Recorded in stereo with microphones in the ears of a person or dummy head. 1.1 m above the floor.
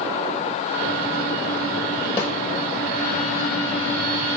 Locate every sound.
2.2 s a snare drum: 20° left (ahead or behind), 5.5 m